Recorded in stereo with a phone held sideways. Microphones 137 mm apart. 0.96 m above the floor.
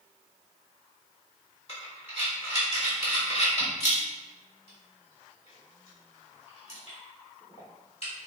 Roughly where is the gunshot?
I don't hear a gunshot.